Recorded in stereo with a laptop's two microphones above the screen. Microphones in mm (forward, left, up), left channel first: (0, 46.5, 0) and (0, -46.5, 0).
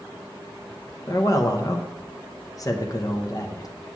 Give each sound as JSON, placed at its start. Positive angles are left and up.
{"t": 1.1, "sound": "a man speaking", "side_deg": 40, "distance_m": 0.7}